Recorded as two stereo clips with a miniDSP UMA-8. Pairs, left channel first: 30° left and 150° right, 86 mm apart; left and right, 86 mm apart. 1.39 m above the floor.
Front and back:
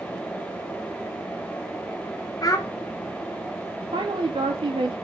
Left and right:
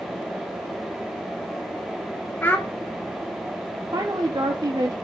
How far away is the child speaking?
About 0.6 m.